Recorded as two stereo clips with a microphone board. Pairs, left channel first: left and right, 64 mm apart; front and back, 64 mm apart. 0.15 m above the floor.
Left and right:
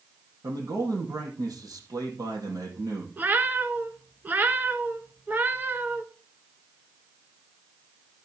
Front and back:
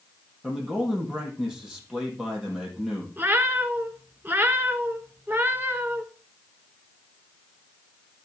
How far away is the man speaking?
About 4.5 m.